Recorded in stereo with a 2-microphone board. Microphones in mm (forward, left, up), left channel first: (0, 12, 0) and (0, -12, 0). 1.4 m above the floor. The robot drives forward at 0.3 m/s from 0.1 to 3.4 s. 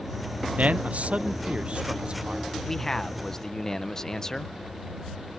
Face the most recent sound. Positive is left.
turn(degrees=25)  # may be behind; listen again after turning